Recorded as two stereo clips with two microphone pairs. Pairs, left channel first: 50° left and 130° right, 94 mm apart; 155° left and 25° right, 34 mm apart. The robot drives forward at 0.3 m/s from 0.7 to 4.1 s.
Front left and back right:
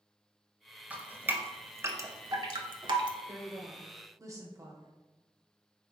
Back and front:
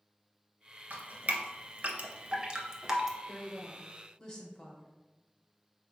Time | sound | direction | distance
0.9 | dripping | 55° right | 0.8 m
3.3 | a woman speaking | 135° right | 0.9 m